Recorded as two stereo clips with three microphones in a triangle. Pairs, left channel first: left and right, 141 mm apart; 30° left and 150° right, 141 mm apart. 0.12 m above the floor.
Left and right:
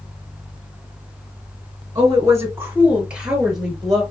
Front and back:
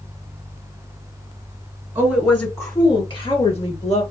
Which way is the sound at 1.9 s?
85° right.